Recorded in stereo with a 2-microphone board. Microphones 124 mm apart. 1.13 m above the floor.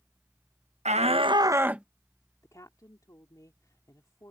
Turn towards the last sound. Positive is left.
turn(degrees=25)  # may be behind; listen again after turning